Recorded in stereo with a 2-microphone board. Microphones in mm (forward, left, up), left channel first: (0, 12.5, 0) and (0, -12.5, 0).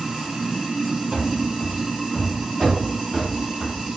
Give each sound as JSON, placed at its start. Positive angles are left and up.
{"t": 0.0, "sound": "running water", "side_deg": -15, "distance_m": 1.0}
{"t": 1.1, "sound": "running footsteps", "side_deg": -25, "distance_m": 0.9}